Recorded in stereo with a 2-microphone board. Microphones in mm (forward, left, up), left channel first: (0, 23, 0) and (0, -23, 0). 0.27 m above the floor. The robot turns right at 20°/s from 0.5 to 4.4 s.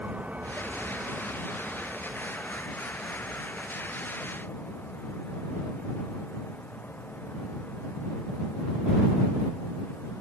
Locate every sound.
0.0 s a vehicle: 30° right (ahead or behind); by 10.2 s 40° left (ahead or behind)